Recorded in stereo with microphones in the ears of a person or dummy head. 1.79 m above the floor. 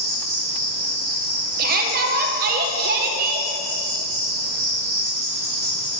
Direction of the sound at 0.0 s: 5° left (ahead or behind).